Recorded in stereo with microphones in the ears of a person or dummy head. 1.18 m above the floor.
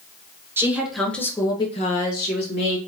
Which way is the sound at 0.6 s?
15° right (ahead or behind).